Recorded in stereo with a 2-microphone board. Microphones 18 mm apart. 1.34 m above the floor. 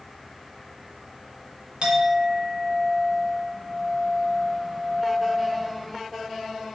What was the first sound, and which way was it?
A clink, 65° right (ahead or behind).